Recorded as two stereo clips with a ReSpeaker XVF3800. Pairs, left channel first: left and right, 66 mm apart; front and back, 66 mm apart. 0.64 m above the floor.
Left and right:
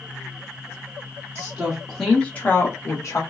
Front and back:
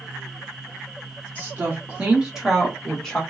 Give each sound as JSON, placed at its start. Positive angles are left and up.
{"t": 1.4, "sound": "a woman speaking", "azimuth_deg": -140, "distance_m": 1.1}